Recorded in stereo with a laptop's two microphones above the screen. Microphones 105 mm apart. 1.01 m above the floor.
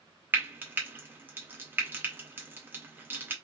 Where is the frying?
20° right (ahead or behind), 0.5 m.